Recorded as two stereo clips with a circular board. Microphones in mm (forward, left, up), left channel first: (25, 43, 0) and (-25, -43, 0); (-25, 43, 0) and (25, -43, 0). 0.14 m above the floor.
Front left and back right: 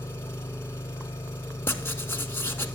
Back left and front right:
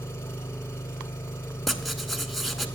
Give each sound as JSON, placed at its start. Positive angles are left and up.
{"t": 0.0, "sound": "an engine running", "azimuth_deg": 90, "distance_m": 0.9}
{"t": 1.7, "sound": "writing", "azimuth_deg": 30, "distance_m": 0.7}